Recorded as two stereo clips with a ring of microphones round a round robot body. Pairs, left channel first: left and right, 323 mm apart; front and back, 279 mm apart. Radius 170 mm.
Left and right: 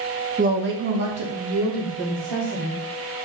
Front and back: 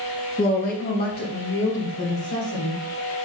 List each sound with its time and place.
0.4 s a woman speaking: 50° right, 0.6 m; by 2.8 s 55° right, 2.5 m